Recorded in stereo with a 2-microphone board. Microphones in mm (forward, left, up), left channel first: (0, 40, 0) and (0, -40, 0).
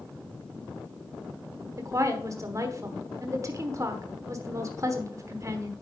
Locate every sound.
1.8 s a woman speaking: 40° right (ahead or behind), 1.1 m